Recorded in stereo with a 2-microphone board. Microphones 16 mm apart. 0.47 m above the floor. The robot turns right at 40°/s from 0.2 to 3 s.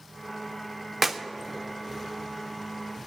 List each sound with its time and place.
1.0 s a clap: 15° right (ahead or behind), 0.7 m; by 1.2 s 20° right (ahead or behind), 0.7 m